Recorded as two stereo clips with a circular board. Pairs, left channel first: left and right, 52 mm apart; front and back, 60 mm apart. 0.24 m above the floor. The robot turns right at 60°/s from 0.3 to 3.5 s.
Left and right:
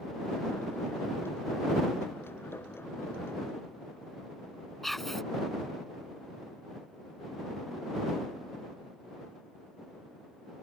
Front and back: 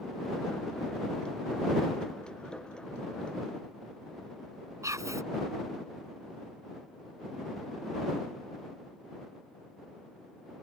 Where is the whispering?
175° left.